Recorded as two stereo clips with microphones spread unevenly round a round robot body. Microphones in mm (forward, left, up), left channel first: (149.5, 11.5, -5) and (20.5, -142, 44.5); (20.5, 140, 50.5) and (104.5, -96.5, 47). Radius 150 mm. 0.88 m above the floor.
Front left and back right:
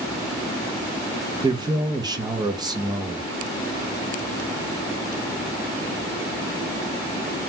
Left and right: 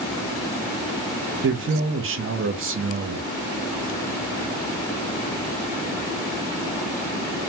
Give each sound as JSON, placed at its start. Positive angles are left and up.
{"t": 1.4, "sound": "a man speaking", "azimuth_deg": -50, "distance_m": 0.6}